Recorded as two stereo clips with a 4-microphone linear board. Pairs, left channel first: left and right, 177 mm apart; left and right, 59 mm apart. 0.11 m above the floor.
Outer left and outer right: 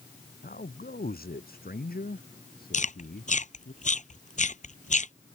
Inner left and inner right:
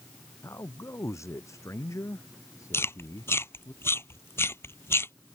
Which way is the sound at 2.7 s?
45° left (ahead or behind).